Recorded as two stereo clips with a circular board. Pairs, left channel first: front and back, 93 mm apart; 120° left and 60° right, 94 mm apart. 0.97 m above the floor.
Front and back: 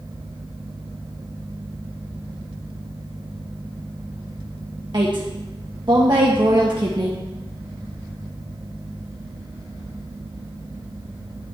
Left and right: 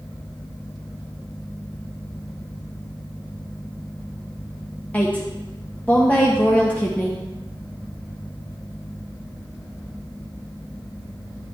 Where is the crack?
I don't hear a crack.